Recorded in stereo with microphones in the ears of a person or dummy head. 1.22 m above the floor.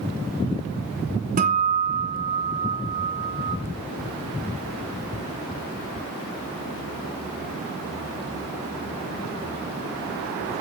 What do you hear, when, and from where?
1.4 s a guitar: 45° right (ahead or behind), 2.5 m